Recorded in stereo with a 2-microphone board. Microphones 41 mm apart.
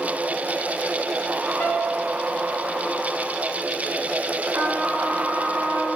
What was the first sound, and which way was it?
A piano, 80° left.